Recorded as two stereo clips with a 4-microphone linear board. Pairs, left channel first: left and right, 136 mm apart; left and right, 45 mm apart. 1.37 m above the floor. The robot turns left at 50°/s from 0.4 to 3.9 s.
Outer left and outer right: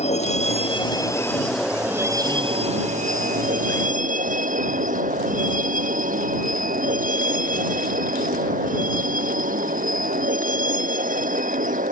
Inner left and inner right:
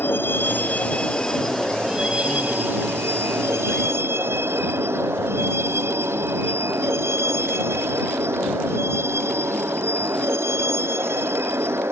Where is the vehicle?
55° left (ahead or behind); by 11.9 s 80° right.